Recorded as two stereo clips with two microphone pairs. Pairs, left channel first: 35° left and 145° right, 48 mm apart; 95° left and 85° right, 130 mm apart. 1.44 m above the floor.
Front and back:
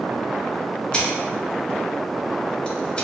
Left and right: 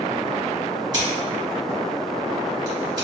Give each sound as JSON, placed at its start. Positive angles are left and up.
{"t": 0.9, "sound": "scissors", "azimuth_deg": -30, "distance_m": 1.3}